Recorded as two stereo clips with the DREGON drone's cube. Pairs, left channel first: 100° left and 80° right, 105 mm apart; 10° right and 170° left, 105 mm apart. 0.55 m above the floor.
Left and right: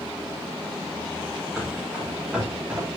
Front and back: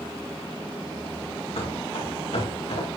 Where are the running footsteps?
5° left, 7 m; by 2.9 s straight ahead, 6.5 m.